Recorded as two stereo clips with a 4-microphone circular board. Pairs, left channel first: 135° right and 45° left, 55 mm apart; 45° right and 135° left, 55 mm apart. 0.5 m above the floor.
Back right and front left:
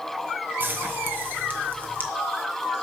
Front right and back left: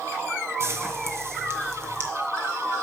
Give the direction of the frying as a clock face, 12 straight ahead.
9 o'clock.